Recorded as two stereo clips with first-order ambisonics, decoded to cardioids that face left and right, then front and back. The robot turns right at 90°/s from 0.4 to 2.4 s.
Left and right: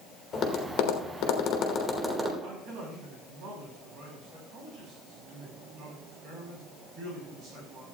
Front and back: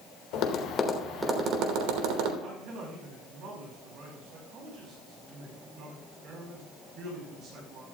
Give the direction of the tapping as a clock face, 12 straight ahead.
11 o'clock.